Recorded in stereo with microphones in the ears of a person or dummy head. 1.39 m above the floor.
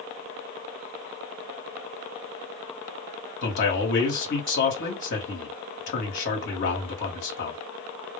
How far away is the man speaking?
About 1.3 m.